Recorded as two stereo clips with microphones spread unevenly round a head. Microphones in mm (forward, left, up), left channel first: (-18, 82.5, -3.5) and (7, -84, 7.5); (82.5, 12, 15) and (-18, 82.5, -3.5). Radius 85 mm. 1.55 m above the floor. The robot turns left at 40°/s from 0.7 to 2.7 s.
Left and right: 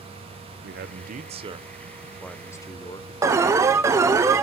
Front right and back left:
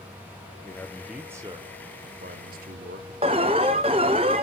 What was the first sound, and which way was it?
A man speaking, 110° right.